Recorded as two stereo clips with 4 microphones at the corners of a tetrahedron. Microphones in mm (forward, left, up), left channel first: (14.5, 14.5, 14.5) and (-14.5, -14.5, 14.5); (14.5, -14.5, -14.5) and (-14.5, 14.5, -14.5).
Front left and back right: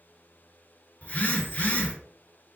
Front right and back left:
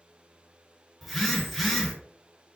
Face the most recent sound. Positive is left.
turn(degrees=45)